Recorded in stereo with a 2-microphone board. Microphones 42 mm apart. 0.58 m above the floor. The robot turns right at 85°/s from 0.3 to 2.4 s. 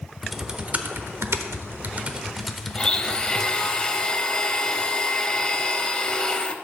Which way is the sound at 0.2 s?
Centre (ahead or behind).